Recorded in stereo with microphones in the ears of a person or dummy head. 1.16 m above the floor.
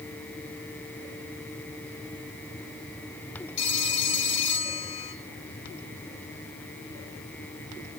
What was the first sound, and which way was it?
A phone ringing, 40° left (ahead or behind).